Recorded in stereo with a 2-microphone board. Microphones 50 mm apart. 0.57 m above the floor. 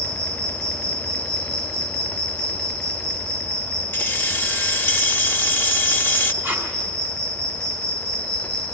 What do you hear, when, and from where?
0.0 s an insect: 20° left (ahead or behind), 8.5 m
3.9 s keys jangling: 45° left (ahead or behind), 0.9 m
6.4 s tape being pulled: 30° right (ahead or behind), 4.5 m